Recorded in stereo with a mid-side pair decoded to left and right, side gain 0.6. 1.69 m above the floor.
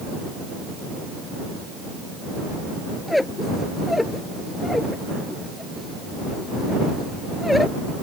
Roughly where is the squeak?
Ahead.